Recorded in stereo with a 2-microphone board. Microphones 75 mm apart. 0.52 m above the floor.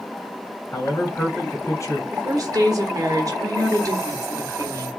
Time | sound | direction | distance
0.7 | a man speaking | 40° left (ahead or behind) | 1.7 m
2.1 | a woman speaking | 50° right (ahead or behind) | 1.2 m